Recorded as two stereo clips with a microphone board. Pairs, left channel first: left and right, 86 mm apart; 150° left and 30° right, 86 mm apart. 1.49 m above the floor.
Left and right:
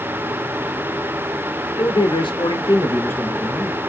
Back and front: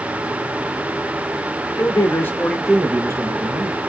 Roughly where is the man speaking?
Left.